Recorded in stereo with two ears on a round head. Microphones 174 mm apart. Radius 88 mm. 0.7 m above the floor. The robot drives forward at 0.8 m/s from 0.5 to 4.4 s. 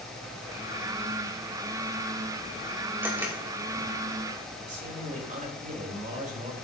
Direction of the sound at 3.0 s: 15° right (ahead or behind).